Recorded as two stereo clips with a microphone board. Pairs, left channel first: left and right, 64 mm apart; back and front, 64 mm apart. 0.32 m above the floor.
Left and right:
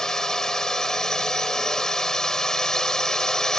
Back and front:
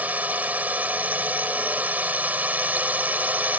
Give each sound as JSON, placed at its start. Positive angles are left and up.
{"t": 0.0, "sound": "a drone", "azimuth_deg": 20}